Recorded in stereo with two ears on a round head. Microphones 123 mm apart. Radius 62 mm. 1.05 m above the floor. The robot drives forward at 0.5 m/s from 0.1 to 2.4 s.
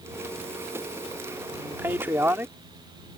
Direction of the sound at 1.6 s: 15° right (ahead or behind).